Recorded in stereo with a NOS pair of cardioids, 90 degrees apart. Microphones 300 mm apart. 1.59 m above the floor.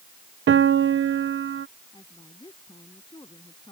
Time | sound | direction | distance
0.5 | a piano | 45° right | ?
1.9 | a woman speaking | 15° left | ?